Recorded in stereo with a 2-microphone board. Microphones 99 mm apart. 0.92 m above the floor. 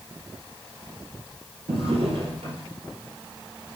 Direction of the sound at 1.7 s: 75° right (ahead or behind).